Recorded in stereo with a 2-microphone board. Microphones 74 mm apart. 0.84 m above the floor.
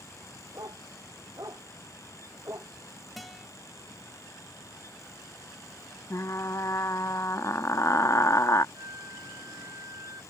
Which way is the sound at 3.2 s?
Centre (ahead or behind).